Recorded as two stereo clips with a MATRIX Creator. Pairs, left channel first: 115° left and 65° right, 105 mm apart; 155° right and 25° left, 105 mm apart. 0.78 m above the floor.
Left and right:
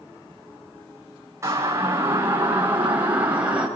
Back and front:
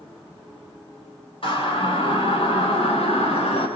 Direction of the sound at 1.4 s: 130° right.